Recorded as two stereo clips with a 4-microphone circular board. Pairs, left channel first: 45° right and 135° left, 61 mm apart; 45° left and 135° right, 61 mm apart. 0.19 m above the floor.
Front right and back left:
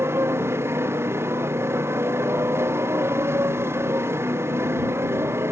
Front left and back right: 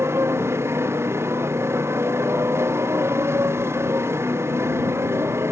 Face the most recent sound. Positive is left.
turn(degrees=180)